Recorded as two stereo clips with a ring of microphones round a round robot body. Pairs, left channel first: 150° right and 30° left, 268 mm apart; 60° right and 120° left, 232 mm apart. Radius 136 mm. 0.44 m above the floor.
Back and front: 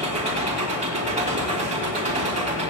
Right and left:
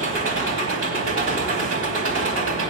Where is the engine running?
95° left, 2.5 m.